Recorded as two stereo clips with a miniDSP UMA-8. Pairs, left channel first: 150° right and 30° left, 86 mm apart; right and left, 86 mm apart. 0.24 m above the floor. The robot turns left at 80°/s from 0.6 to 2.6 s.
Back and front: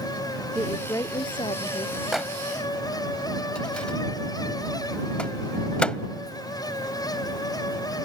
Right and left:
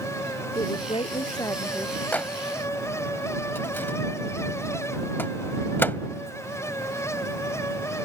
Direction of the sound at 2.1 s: 50° right.